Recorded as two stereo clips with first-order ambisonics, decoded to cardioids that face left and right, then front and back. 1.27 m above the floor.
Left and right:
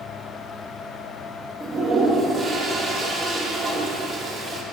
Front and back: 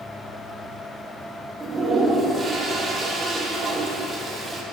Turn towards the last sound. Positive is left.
turn(degrees=-120)